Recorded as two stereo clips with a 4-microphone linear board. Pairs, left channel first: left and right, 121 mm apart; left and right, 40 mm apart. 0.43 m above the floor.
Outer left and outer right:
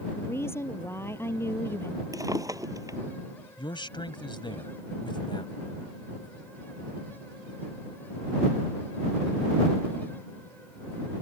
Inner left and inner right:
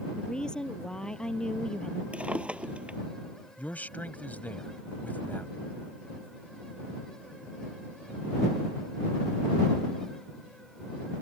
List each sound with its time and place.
0.2 s a woman speaking: 20° left (ahead or behind)
2.1 s a drawer: 30° right (ahead or behind)
3.6 s a man speaking: 40° left (ahead or behind)